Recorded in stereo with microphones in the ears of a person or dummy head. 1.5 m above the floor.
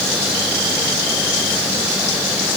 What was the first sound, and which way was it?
Only background noise.